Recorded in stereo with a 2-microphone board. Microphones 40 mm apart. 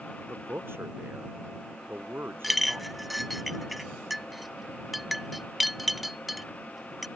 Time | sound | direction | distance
0.3 | a man speaking | 75° right (ahead or behind) | ?
2.4 | a clink | centre (ahead or behind) | ?